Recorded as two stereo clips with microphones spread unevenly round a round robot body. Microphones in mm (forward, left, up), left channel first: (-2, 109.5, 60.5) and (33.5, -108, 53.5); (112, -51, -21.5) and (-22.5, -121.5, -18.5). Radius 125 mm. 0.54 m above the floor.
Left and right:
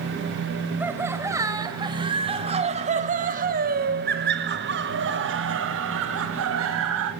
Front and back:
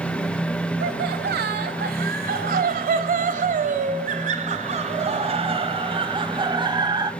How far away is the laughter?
About 3 m.